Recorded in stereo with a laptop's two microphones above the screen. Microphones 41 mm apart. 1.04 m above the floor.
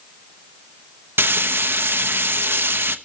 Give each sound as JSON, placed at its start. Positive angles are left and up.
{"t": 1.2, "sound": "frying", "side_deg": -65, "distance_m": 1.2}